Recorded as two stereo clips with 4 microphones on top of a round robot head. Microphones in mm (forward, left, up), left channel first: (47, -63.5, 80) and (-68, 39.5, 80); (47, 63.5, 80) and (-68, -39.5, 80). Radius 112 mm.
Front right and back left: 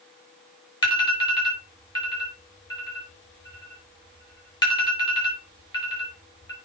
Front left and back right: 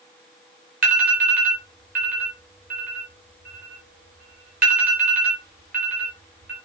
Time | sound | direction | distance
0.8 | an alarm | 105° right | 5.5 m